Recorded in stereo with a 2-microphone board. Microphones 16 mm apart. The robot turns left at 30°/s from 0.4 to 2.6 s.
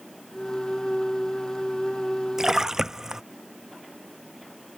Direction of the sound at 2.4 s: 30° right (ahead or behind).